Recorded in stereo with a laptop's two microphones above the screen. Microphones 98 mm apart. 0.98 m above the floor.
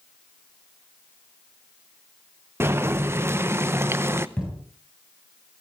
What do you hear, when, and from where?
2.6 s boiling: 25° right (ahead or behind), 0.7 m
4.4 s a thud: 10° left (ahead or behind), 8 m